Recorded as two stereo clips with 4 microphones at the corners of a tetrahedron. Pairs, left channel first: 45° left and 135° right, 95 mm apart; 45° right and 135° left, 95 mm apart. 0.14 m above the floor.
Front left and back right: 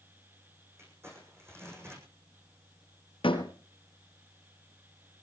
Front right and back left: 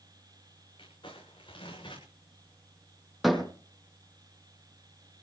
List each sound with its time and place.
0.8 s crumpling: 75° right, 8.5 m
3.2 s a door slam: 45° left, 3.5 m